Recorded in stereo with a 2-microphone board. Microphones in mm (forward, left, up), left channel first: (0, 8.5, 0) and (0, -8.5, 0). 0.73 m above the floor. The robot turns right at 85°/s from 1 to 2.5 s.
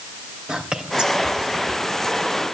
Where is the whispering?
65° right (ahead or behind), 3 m; by 1.7 s 55° right (ahead or behind), 3 m.